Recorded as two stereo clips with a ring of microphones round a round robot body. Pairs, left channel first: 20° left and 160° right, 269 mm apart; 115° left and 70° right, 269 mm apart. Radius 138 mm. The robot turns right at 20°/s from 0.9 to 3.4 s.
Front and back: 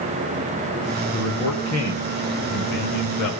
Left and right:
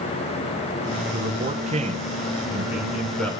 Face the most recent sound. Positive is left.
turn(degrees=30)